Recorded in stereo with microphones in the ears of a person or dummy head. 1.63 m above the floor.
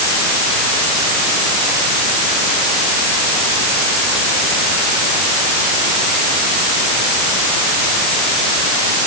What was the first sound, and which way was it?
Only background noise.